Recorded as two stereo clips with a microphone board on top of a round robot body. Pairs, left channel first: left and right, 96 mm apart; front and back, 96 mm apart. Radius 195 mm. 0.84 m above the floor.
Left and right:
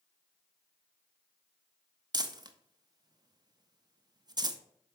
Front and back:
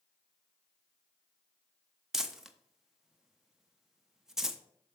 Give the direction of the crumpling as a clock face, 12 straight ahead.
3 o'clock.